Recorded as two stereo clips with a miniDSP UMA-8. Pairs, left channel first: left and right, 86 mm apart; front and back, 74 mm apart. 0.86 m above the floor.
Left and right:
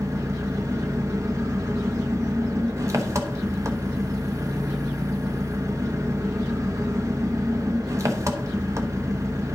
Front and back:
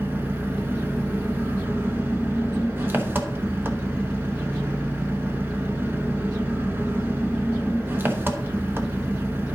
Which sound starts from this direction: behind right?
An engine running, at 0.0 s.